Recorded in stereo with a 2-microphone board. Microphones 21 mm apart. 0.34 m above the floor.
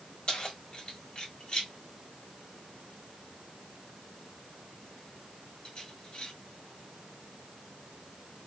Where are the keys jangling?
50° left (ahead or behind), 1.4 m.